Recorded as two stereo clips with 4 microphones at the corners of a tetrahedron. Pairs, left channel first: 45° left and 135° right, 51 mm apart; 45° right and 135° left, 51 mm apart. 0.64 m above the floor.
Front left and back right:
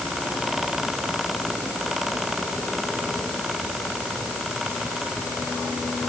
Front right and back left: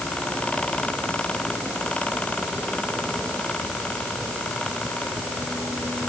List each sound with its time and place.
Only background noise.